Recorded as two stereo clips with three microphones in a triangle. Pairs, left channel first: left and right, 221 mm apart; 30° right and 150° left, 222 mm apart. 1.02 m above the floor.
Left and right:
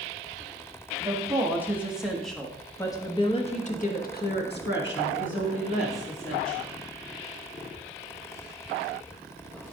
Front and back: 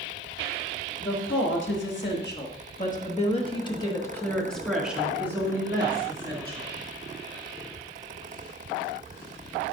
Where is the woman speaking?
15° right, 1.8 m; by 6.7 s 85° left, 2 m.